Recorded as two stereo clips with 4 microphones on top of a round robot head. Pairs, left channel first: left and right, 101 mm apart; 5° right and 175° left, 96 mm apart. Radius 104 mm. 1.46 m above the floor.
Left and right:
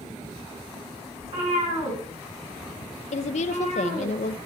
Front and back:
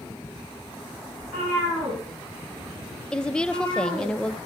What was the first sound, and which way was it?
A cat meowing, 100° right.